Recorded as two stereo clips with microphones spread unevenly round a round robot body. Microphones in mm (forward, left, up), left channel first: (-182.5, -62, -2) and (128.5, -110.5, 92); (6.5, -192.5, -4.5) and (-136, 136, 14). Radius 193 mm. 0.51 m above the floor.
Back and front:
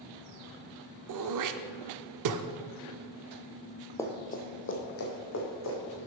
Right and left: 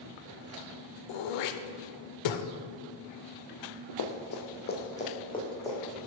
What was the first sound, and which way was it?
Throat clearing, 45° right.